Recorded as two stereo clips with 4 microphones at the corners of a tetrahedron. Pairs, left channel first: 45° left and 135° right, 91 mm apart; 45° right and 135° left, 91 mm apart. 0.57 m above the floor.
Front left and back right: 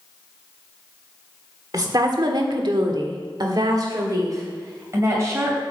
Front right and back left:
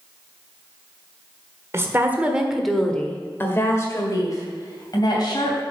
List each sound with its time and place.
1.7 s a woman speaking: 170° right, 1.5 m; by 5.6 s 80° right, 3.5 m